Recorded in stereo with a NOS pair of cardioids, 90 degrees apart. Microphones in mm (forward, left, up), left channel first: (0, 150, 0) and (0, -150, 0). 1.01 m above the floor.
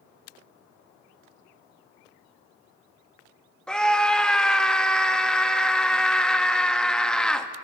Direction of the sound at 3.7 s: 5° left.